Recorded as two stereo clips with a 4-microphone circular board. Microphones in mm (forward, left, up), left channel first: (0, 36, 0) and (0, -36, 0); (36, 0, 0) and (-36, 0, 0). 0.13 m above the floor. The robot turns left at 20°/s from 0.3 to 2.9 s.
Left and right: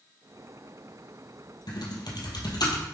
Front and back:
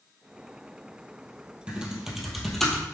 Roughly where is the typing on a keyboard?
Left.